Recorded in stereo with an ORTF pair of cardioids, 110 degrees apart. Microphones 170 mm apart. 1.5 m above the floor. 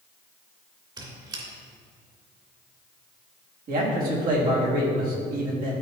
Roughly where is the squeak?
Ahead right.